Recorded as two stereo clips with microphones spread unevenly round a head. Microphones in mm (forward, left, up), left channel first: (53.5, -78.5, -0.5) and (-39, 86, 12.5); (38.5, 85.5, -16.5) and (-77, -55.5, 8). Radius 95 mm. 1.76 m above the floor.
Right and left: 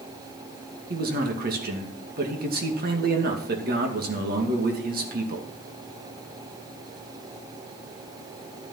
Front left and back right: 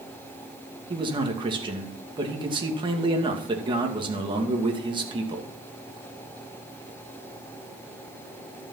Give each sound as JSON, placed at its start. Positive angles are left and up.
{"t": 0.9, "sound": "a man speaking", "azimuth_deg": 165, "distance_m": 2.5}